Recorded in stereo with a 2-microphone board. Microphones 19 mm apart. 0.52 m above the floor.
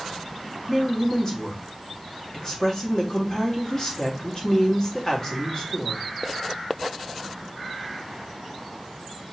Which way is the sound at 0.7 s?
40° left (ahead or behind).